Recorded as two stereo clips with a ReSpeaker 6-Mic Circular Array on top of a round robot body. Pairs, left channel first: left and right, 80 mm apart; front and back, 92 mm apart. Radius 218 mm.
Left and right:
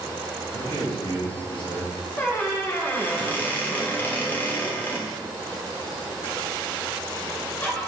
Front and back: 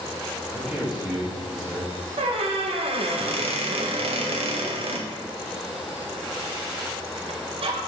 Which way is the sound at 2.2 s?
160° left.